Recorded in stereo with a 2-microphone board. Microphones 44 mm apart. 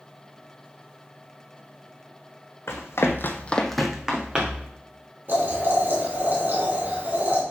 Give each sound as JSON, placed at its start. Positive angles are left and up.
{"t": 2.7, "sound": "running footsteps", "side_deg": 75, "distance_m": 1.3}
{"t": 5.3, "sound": "boiling", "side_deg": -50, "distance_m": 3.5}